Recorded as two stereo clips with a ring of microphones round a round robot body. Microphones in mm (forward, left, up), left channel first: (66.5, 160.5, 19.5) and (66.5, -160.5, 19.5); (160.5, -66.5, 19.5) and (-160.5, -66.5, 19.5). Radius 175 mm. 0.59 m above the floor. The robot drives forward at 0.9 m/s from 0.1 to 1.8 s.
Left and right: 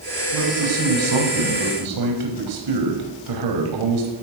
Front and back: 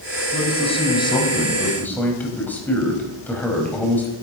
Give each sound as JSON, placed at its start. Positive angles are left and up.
{"t": 0.3, "sound": "a man speaking", "azimuth_deg": -70, "distance_m": 5.0}